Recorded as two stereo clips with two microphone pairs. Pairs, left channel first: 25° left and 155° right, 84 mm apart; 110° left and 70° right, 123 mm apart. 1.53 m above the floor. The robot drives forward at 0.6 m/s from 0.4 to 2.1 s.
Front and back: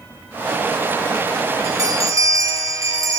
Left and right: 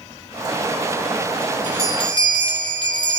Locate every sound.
1.6 s a bell: 155° left, 4 m